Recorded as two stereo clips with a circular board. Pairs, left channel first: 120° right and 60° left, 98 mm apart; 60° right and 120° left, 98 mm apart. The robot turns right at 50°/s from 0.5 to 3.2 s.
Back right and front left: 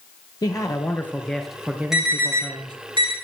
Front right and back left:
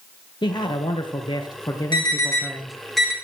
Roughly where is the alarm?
Ahead right.